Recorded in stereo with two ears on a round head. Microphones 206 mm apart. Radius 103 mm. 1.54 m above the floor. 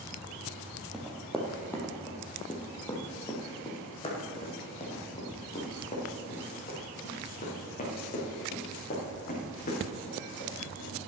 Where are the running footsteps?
Centre (ahead or behind), 1.9 m; by 11.0 s 35° left (ahead or behind), 7.5 m.